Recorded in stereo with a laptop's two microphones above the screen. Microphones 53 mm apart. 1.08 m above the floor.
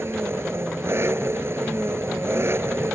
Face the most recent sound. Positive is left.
turn(degrees=-50)  # may be behind; listen again after turning